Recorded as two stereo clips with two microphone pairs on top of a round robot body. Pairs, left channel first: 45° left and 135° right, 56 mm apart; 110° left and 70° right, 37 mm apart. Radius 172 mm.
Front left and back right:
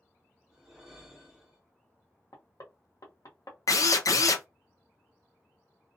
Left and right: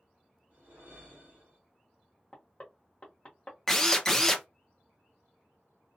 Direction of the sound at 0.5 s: 50° right.